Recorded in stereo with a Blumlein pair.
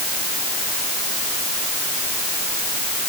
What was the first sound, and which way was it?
Only background noise.